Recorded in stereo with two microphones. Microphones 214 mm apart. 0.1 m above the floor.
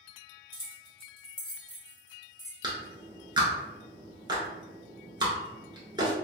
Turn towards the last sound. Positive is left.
turn(degrees=-20)  # may be behind; listen again after turning